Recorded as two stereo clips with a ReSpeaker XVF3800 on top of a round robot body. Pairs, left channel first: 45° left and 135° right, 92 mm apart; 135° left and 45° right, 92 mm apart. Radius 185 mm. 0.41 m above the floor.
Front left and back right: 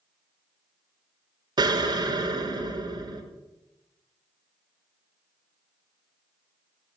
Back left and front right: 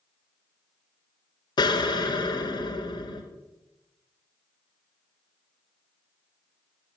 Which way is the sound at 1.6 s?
Straight behind.